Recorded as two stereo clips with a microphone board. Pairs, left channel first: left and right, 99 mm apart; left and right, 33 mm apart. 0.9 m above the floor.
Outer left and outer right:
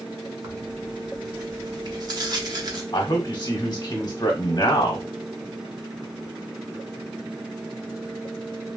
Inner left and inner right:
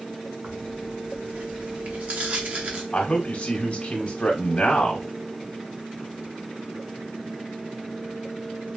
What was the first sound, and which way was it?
Tearing paper, 45° right (ahead or behind).